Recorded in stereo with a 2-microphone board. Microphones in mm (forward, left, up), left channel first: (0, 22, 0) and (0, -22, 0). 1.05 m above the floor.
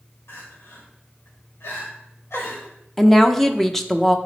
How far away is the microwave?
I don't hear a microwave.